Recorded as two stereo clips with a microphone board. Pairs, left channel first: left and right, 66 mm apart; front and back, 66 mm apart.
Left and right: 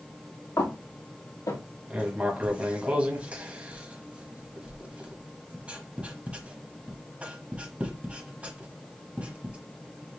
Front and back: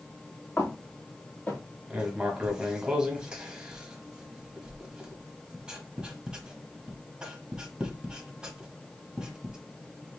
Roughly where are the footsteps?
Ahead left.